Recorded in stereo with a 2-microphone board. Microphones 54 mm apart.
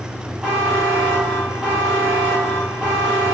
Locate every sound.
0.4 s a buzzer: 15° right (ahead or behind), 1.4 m